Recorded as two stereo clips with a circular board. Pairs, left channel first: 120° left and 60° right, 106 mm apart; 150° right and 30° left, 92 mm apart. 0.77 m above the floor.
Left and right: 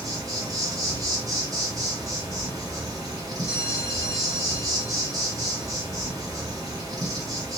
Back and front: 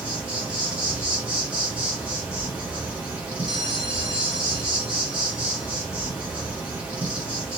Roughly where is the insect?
Ahead right.